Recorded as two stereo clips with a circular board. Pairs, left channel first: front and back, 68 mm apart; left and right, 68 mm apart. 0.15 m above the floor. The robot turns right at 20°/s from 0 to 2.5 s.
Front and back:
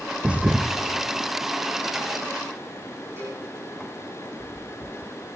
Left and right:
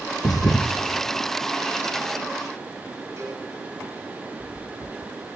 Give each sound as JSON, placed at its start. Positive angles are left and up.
{"t": 0.2, "sound": "a thud", "azimuth_deg": 105, "distance_m": 1.3}
{"t": 3.2, "sound": "a cowbell", "azimuth_deg": -130, "distance_m": 7.0}